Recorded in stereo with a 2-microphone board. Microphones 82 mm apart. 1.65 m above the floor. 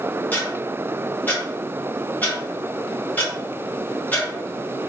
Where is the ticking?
20° left (ahead or behind), 1.5 m.